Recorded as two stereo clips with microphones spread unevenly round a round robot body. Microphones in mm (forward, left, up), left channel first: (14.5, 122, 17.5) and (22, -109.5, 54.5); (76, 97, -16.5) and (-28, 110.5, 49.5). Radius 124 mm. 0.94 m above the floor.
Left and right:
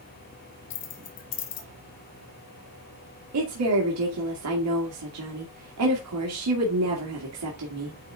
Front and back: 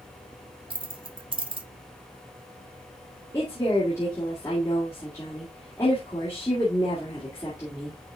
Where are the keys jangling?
130° left, 1.4 m.